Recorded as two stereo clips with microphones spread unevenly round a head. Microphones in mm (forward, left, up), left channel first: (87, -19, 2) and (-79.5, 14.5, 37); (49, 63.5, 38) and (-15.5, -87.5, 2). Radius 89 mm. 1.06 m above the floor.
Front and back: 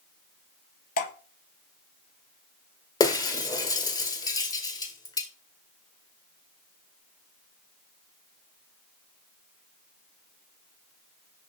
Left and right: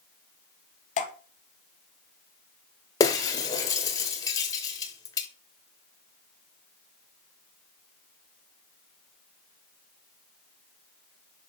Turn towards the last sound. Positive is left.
turn(degrees=60)